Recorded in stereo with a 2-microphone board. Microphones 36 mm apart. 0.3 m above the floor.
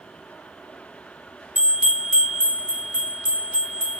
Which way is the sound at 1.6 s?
45° right (ahead or behind).